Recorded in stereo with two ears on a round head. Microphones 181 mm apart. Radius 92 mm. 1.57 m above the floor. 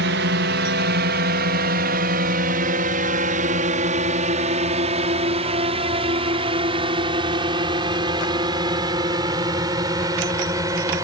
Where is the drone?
60° right (ahead or behind); by 11.0 s 15° right (ahead or behind).